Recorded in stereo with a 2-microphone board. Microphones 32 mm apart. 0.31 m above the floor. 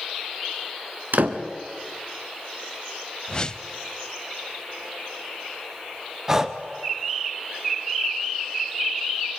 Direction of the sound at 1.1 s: 75° right (ahead or behind).